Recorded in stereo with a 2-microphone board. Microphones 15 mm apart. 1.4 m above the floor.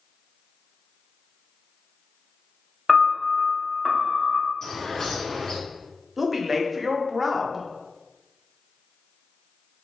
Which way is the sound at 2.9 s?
5° right (ahead or behind).